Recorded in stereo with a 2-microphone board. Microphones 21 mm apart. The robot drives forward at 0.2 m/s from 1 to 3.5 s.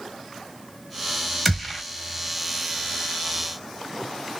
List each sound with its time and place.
1.4 s a gunshot: 15° left (ahead or behind), 1.4 m